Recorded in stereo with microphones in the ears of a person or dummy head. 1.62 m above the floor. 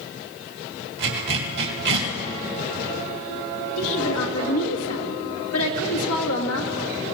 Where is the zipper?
70° right (ahead or behind), 2.0 m.